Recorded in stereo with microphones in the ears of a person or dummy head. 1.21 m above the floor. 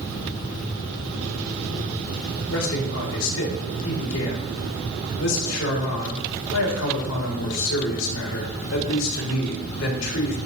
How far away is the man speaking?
About 3.5 m.